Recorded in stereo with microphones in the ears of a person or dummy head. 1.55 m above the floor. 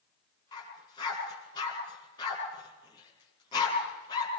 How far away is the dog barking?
About 6.5 m.